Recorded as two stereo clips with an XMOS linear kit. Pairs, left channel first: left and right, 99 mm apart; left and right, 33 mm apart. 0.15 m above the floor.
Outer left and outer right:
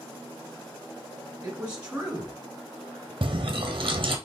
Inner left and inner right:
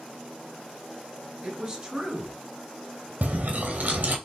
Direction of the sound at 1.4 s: 10° right (ahead or behind).